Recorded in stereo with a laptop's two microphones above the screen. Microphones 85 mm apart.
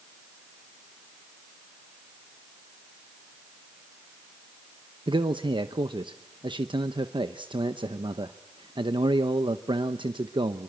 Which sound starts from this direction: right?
A man speaking, at 5.1 s.